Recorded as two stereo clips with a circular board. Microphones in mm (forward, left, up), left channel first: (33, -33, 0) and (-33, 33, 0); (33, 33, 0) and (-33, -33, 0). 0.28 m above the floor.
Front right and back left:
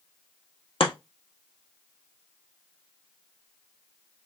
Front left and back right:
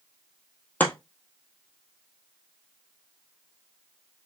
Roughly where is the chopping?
Ahead right.